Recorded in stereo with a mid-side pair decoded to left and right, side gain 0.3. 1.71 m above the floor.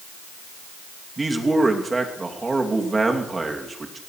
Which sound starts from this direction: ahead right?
A man speaking, at 1.2 s.